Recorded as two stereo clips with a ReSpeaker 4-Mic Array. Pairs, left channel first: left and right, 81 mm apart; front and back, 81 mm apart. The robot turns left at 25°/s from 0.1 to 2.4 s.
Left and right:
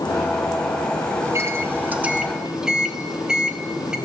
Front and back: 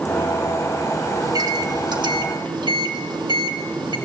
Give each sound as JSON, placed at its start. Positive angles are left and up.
{"t": 1.2, "sound": "a microwave", "azimuth_deg": -140, "distance_m": 2.5}